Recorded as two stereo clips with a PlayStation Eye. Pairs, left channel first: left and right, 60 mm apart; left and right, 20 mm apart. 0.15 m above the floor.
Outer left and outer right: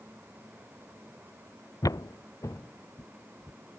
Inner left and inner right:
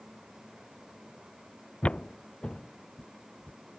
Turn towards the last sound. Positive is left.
turn(degrees=35)  # may be behind; listen again after turning